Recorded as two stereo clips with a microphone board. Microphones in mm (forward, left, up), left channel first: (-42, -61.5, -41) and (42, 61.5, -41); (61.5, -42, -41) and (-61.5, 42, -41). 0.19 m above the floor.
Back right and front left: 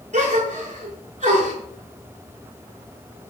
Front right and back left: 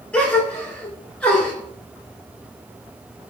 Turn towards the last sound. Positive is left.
turn(degrees=45)